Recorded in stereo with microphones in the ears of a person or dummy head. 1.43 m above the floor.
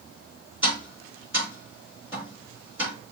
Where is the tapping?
10° right (ahead or behind), 3 m.